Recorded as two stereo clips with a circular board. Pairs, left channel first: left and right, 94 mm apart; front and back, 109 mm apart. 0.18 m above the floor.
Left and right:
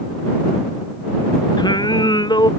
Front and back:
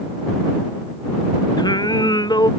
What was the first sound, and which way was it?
Singing, 50° left.